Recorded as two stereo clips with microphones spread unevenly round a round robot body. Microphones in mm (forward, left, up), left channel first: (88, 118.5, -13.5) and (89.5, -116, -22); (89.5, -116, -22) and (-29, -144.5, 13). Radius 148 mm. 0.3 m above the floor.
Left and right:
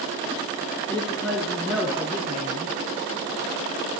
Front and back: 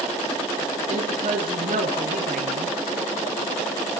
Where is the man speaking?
175° left, 3 m; by 2.7 s 165° right, 3 m.